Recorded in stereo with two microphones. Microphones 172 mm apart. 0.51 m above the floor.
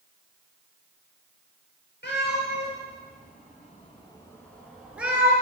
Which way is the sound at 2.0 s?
85° left.